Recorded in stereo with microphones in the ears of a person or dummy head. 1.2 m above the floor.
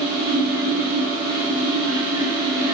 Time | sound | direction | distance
0.0 | a fan | 20° right (ahead or behind) | 1.4 m